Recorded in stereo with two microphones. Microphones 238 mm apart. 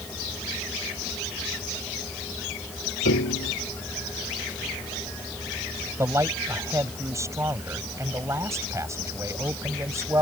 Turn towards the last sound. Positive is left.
turn(degrees=-10)  # may be behind; listen again after turning